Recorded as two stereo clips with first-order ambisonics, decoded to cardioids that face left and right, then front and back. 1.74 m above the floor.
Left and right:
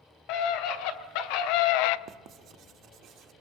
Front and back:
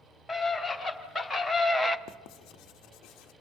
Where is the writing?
35° right, 0.6 m.